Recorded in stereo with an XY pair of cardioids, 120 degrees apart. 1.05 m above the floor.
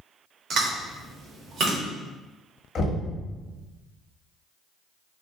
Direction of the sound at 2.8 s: 45° left.